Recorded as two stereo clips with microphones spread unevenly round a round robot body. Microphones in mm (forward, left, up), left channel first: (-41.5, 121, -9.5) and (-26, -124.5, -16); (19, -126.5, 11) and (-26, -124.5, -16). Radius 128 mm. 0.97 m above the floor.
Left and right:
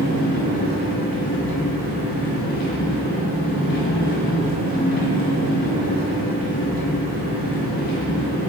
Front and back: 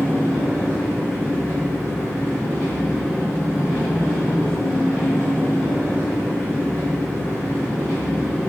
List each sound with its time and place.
0.0 s an engine running: 55° left, 1.7 m